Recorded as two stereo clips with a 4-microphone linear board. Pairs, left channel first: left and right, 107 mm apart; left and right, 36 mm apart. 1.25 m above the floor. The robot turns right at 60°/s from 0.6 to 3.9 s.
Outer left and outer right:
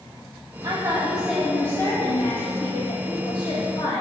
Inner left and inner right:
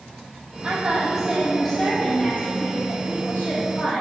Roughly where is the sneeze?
I don't hear a sneeze.